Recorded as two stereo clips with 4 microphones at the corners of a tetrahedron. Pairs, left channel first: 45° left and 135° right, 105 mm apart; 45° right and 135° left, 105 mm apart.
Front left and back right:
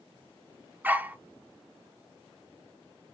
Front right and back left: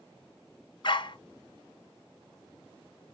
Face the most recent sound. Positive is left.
turn(degrees=-65)